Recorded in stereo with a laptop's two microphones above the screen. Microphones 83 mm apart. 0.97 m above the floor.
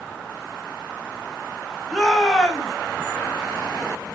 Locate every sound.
1.9 s a shout: 5° left (ahead or behind), 0.9 m